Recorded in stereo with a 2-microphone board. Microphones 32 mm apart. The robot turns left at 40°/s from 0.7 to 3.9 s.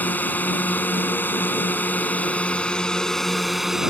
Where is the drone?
115° left; by 3.9 s 15° right.